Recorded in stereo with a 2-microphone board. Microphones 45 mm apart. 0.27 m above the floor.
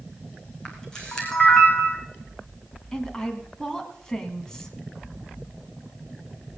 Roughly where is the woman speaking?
Centre.